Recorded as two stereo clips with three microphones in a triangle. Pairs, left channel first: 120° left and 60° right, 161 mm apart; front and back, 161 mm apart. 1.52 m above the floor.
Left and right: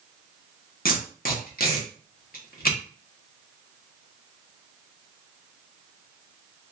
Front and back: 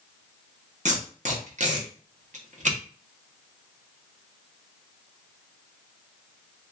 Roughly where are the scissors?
I don't hear scissors.